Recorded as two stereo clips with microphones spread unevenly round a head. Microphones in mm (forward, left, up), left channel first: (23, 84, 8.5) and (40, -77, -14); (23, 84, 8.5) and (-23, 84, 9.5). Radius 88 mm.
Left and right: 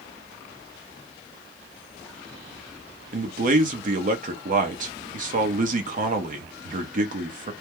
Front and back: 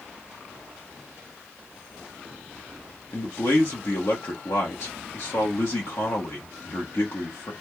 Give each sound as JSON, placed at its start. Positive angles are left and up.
{"t": 3.1, "sound": "a man speaking", "azimuth_deg": -50, "distance_m": 1.1}